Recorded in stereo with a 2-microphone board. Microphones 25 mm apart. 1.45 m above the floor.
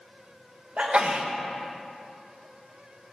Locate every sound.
0.8 s a sneeze: 50° right (ahead or behind), 1.1 m